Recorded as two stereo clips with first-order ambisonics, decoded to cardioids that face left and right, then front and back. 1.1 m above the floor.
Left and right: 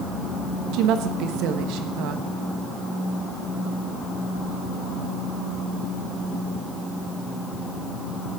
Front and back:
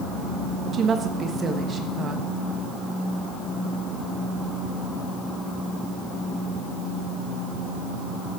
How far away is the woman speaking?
About 1.3 m.